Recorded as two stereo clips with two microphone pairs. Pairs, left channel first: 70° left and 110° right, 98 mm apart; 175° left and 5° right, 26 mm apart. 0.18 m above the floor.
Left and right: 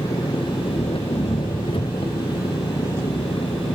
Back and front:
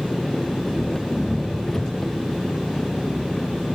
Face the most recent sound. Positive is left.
turn(degrees=95)